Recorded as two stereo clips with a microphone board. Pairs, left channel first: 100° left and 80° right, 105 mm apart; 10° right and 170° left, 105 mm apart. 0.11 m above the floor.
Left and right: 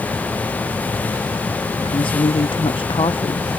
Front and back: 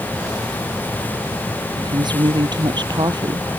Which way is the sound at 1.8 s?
130° left.